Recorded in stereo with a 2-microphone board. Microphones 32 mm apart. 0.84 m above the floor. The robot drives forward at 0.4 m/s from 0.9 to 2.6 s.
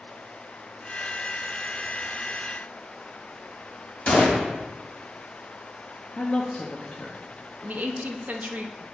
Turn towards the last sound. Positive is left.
turn(degrees=-50)  # may be behind; listen again after turning